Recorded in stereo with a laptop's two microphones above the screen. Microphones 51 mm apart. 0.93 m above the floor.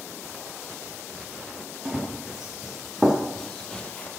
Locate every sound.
1.9 s running footsteps: 10° right (ahead or behind), 3.5 m; by 4.1 s 30° left (ahead or behind), 1.1 m